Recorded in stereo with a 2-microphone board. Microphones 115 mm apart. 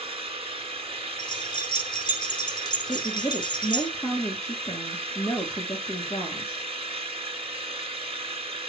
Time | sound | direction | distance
0.0 | an engine running | 60° right (ahead or behind) | 1.4 m
1.2 | keys jangling | 45° left (ahead or behind) | 4.5 m
2.9 | a woman speaking | 25° left (ahead or behind) | 3 m